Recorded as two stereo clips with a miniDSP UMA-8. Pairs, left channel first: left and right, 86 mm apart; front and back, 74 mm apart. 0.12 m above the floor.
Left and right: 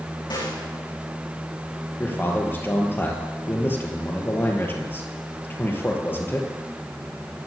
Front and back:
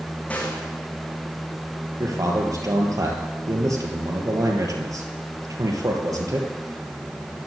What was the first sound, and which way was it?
A snare drum, 70° left.